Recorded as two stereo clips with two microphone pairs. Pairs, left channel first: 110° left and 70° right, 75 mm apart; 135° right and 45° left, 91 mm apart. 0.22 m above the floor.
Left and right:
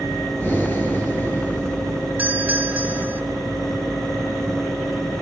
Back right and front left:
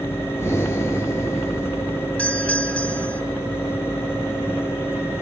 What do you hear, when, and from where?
0.4 s breathing: 170° left, 4 m
2.2 s a doorbell: 80° right, 2 m